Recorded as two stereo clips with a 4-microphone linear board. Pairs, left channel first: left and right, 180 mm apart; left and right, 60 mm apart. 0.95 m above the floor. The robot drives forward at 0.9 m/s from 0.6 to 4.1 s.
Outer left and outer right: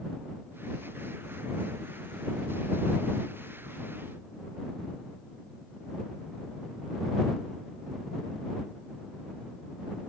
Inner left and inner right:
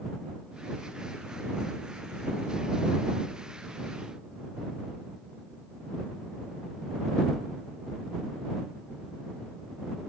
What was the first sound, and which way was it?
Only background noise.